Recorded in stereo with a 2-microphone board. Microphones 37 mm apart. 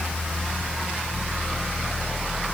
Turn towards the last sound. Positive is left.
No sound to turn to.